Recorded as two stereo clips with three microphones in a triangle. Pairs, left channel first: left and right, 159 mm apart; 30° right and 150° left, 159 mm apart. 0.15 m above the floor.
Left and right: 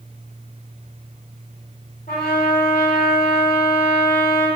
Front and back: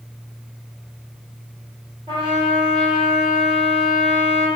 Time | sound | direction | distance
2.1 | a trumpet | 95° left | 1.7 m